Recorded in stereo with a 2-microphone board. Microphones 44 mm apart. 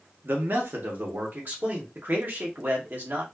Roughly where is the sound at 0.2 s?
Right.